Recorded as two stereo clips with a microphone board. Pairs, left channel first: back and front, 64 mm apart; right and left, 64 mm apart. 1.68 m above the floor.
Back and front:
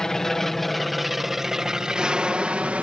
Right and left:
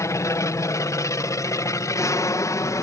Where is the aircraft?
100° right; by 2.8 s 65° right.